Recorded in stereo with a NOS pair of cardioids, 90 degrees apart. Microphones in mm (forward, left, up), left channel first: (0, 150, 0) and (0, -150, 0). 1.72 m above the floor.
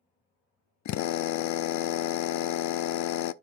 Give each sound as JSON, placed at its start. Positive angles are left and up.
{"t": 0.8, "sound": "a drill", "azimuth_deg": 70, "distance_m": 0.7}